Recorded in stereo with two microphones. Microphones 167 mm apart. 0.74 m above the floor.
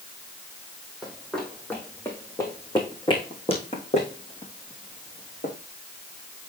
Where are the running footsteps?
5° right (ahead or behind), 2 m; by 5.5 s 50° left (ahead or behind), 3.5 m.